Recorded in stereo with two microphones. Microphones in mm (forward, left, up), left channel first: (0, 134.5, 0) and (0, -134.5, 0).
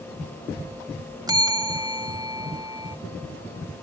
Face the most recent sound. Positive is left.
turn(degrees=-15)  # may be behind; listen again after turning